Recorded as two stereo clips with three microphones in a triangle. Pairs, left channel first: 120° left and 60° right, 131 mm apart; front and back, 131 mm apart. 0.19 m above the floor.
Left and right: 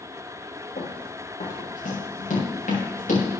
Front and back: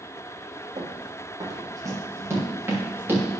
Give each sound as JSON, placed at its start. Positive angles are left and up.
{"t": 0.8, "sound": "running footsteps", "azimuth_deg": 125, "distance_m": 4.0}